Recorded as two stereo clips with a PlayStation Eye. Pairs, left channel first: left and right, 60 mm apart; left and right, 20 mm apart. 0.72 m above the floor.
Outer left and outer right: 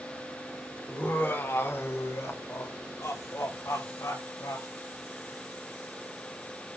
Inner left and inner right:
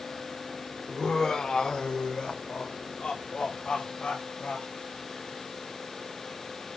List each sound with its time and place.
0.9 s laughter: 35° left (ahead or behind), 2.5 m; by 4.7 s 70° left (ahead or behind), 4.5 m